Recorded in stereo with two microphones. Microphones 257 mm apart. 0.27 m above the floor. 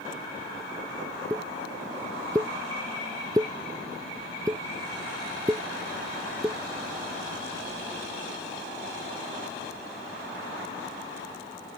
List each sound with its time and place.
1.3 s a pop: 15° right (ahead or behind)